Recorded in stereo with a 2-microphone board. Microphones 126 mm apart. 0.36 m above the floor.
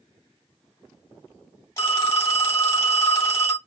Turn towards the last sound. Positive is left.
turn(degrees=25)  # may be behind; listen again after turning